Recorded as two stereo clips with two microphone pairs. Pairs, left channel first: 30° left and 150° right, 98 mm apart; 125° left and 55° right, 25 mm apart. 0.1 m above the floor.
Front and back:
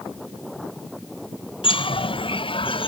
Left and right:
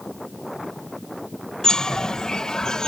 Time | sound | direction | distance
1.6 | a bird | 65° left | ?